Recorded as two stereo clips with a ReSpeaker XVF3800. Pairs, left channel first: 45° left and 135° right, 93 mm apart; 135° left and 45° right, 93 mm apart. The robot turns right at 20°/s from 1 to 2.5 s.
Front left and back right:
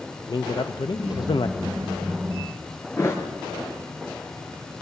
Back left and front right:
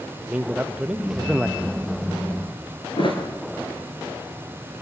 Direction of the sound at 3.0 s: 105° left.